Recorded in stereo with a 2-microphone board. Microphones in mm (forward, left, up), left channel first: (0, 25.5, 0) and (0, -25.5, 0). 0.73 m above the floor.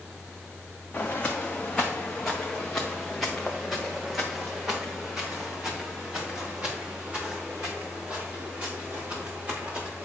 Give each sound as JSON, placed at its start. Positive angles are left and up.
{"t": 0.9, "sound": "footsteps", "side_deg": 25, "distance_m": 2.5}